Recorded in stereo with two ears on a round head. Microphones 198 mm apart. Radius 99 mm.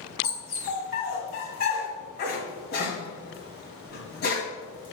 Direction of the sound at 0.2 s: 45° left (ahead or behind).